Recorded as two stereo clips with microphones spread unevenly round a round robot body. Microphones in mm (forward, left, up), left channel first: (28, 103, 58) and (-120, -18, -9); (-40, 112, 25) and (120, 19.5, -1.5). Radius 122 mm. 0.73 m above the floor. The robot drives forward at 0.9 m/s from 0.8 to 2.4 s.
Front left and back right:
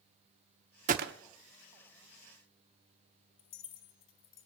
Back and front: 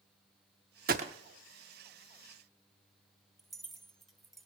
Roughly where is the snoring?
I don't hear snoring.